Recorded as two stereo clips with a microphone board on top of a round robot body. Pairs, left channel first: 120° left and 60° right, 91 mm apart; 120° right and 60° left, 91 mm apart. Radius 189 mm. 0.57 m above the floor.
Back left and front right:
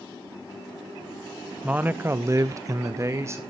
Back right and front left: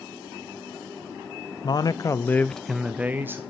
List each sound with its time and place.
1.6 s a man speaking: 130° right, 0.8 m; by 3.4 s 5° right, 1.0 m